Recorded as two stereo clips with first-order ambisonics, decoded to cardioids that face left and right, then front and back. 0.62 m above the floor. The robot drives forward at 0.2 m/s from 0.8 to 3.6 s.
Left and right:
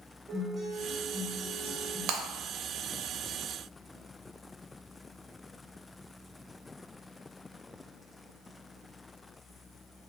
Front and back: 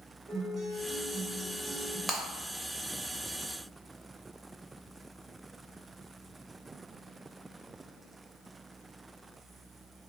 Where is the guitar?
155° right, 0.9 m; by 2.0 s 165° right, 1.0 m.